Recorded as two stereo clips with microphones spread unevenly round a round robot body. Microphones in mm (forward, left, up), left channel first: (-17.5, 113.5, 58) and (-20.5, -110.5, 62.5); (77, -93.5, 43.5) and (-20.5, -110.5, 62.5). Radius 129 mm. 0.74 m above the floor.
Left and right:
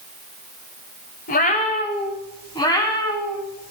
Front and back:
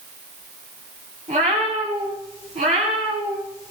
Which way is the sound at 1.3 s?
140° left.